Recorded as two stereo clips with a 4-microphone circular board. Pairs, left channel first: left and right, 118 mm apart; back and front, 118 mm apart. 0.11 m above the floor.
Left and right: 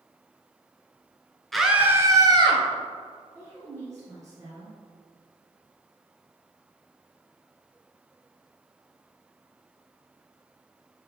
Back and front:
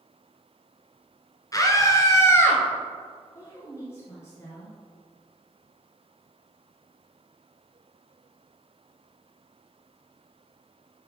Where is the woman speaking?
130° right, 2.0 m.